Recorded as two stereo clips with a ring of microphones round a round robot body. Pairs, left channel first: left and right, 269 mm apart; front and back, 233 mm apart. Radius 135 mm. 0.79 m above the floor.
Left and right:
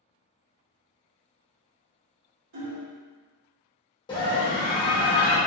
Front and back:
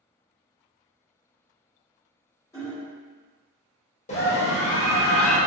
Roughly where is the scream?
Ahead left.